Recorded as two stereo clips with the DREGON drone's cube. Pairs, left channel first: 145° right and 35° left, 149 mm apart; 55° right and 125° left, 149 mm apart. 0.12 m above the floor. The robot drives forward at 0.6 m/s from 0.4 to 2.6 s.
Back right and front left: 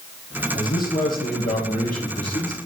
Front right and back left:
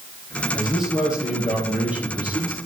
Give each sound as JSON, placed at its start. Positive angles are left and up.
{"t": 0.5, "sound": "a man speaking", "azimuth_deg": -150, "distance_m": 3.0}